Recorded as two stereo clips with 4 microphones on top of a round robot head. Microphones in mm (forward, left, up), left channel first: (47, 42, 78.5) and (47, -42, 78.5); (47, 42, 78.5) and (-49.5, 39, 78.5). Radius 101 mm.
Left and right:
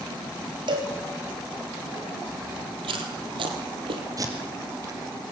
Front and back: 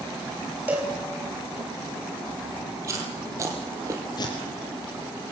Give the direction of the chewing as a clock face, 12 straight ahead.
4 o'clock.